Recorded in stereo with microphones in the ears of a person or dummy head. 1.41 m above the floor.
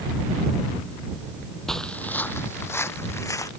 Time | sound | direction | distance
1.7 | footsteps | centre (ahead or behind) | ?